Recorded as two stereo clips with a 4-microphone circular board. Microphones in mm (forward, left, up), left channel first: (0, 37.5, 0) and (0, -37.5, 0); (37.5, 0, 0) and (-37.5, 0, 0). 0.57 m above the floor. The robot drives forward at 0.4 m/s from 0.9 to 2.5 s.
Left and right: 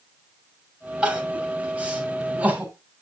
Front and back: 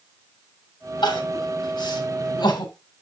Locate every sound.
1.0 s crying: 15° right, 3 m; by 2.7 s 20° right, 2.5 m